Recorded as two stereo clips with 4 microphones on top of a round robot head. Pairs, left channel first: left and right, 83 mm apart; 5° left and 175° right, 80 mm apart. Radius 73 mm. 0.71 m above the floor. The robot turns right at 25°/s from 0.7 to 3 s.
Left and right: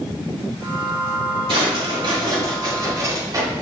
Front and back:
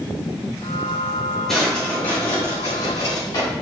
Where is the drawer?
80° right, 3.5 m; by 3.5 s 45° right, 3.5 m.